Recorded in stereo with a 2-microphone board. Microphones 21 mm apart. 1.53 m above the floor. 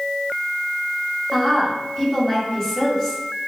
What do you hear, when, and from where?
1.3 s a woman speaking: 10° left (ahead or behind), 2 m